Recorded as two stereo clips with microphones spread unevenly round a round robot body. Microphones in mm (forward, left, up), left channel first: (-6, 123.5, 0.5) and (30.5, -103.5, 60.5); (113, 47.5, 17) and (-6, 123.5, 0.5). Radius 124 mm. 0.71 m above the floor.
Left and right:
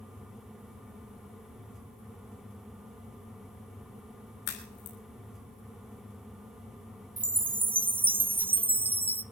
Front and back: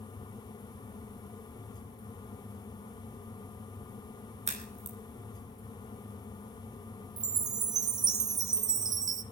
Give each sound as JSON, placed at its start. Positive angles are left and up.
{"t": 4.5, "sound": "a crack", "azimuth_deg": 110, "distance_m": 5.5}
{"t": 7.2, "sound": "a chime", "azimuth_deg": 180, "distance_m": 0.6}